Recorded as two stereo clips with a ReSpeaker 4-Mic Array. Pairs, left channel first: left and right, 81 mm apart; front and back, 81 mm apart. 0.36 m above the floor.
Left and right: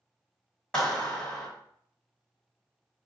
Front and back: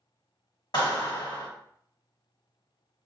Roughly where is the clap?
Ahead.